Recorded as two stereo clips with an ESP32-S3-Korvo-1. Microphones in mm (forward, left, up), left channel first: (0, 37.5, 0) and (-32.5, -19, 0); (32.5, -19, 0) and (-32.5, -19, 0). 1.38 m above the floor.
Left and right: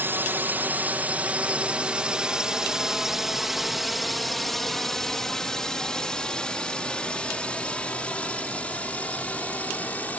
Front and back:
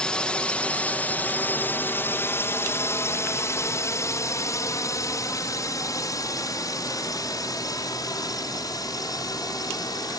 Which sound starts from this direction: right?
A drone, at 0.0 s.